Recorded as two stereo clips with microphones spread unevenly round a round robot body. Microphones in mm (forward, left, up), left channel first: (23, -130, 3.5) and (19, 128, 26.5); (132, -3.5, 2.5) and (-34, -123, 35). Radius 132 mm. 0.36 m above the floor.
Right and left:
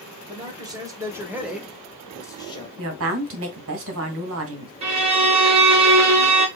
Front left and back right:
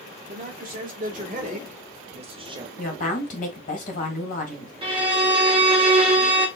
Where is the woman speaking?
70° left, 1.7 m.